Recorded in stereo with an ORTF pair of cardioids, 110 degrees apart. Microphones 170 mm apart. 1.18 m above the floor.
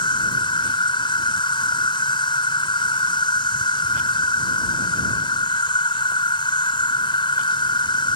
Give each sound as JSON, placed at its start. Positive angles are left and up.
{"t": 0.0, "sound": "an insect", "azimuth_deg": 30}